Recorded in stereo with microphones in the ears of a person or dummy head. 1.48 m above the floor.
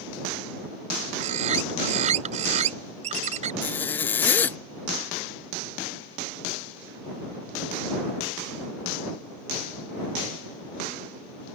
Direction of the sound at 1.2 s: 45° right (ahead or behind).